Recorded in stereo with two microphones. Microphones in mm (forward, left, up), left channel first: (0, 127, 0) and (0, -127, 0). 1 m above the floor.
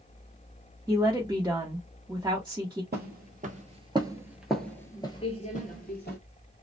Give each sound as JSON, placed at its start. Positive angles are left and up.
{"t": 0.9, "sound": "a woman speaking", "side_deg": -10, "distance_m": 0.9}
{"t": 2.9, "sound": "footsteps", "side_deg": -40, "distance_m": 1.3}